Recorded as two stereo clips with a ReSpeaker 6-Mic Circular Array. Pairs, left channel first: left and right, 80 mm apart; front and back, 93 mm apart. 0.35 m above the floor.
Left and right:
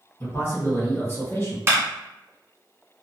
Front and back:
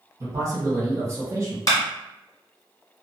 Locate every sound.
0.2 s a man speaking: 140° left, 1.7 m
1.7 s a clap: 40° right, 1.4 m